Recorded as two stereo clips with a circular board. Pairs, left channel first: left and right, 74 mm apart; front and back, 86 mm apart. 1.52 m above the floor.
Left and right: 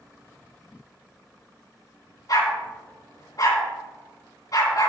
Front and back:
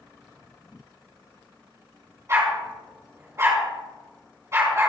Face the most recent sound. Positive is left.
turn(degrees=125)